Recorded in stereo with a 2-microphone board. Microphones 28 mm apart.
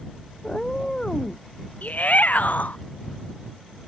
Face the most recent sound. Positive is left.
turn(degrees=70)  # may be behind; listen again after turning